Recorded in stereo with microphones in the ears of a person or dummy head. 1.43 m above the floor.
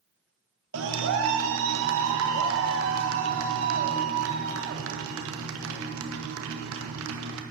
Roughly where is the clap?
Right.